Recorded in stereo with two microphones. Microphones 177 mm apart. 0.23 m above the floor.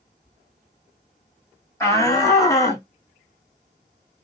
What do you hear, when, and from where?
1.8 s a shout: 15° left (ahead or behind), 1.4 m; by 2.9 s 20° left (ahead or behind), 1.9 m